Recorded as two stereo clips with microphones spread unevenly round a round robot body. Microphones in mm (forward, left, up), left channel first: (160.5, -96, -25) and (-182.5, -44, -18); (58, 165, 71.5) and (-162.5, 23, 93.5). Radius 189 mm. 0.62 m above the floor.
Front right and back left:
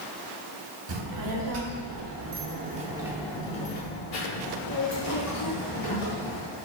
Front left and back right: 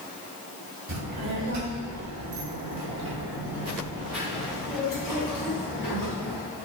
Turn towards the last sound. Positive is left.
turn(degrees=-35)